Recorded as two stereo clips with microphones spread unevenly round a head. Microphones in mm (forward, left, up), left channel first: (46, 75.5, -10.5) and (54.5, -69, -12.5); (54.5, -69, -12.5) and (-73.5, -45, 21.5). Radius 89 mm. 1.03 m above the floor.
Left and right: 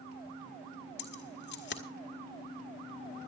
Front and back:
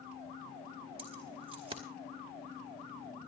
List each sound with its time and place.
1.0 s keys jangling: 105° left, 2.0 m